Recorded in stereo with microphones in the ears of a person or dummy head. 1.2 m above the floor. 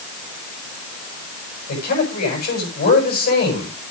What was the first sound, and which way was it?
A man speaking, 50° left (ahead or behind).